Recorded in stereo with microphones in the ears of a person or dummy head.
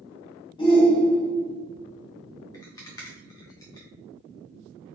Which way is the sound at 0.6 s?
25° left (ahead or behind).